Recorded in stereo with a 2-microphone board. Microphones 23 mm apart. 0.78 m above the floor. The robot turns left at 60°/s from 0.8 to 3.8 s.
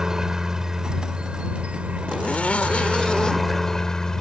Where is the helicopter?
25° right; by 4.2 s 155° left.